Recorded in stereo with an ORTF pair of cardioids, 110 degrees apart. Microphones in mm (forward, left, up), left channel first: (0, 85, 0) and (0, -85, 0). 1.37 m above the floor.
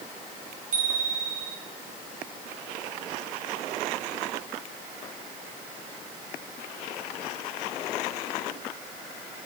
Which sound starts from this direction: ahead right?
A bicycle bell, at 0.7 s.